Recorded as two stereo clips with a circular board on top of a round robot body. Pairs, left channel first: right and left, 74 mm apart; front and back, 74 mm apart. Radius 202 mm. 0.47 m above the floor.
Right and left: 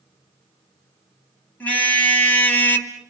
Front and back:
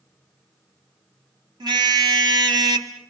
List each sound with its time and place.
1.6 s a car horn: 160° right, 2.5 m; by 2.9 s 150° right, 1.2 m